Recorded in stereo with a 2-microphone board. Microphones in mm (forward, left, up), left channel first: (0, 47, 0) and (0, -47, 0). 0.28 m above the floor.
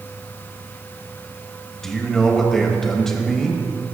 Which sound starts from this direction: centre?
A man speaking, at 1.8 s.